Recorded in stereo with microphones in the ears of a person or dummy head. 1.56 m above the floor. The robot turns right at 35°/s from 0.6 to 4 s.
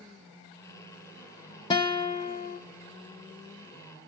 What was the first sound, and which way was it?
A guitar, 30° left.